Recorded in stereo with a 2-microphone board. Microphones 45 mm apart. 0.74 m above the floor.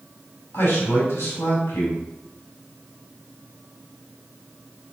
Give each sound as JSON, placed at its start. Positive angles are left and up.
{"t": 0.5, "sound": "a man speaking", "side_deg": 80, "distance_m": 4.5}